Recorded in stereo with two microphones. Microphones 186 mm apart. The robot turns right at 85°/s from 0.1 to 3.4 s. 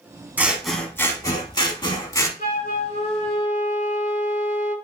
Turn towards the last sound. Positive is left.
turn(degrees=150)